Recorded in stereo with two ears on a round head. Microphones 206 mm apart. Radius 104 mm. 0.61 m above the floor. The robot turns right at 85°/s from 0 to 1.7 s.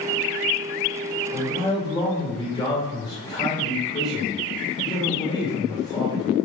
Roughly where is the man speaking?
Ahead.